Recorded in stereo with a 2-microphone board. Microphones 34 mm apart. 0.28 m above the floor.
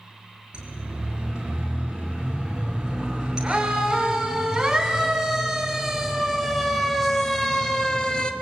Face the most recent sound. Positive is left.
turn(degrees=25)  # may be behind; listen again after turning